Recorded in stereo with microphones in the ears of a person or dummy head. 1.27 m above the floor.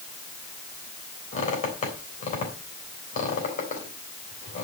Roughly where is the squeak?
Left.